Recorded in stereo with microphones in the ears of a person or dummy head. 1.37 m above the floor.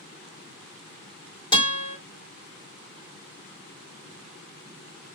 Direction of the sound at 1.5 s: 20° left (ahead or behind).